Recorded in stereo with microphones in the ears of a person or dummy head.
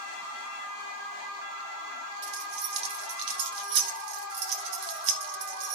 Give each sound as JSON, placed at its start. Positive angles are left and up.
{"t": 2.2, "sound": "keys jangling", "side_deg": -70, "distance_m": 1.2}